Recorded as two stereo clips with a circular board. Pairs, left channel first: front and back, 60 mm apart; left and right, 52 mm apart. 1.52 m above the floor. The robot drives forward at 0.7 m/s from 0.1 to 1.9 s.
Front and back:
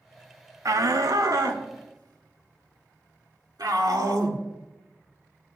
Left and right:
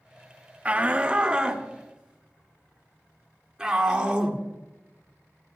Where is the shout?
155° right, 0.9 m; by 4.4 s 165° right, 1.7 m.